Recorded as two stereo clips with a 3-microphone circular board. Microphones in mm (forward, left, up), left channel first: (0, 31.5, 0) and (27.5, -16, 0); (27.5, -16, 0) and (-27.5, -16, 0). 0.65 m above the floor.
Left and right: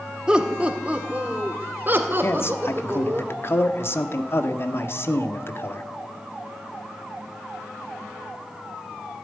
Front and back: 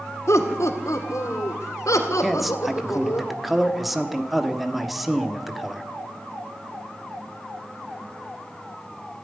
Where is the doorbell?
No doorbell in this recording.